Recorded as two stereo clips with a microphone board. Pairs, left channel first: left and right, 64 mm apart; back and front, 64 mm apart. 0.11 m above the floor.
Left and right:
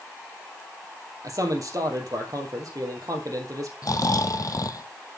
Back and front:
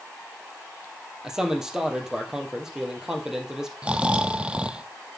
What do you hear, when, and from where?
1.2 s a man speaking: 80° right, 2.5 m
3.8 s snoring: 70° left, 0.6 m